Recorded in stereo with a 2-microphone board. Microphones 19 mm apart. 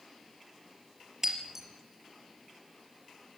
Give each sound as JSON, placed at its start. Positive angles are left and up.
{"t": 1.2, "sound": "breaking glass", "side_deg": -20, "distance_m": 4.0}